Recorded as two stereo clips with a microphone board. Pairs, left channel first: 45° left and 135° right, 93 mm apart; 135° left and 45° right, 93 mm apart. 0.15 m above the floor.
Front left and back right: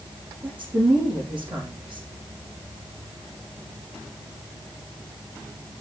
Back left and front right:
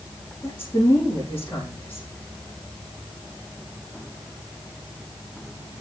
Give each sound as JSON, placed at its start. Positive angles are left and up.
{"t": 0.4, "sound": "a woman speaking", "azimuth_deg": -150, "distance_m": 6.0}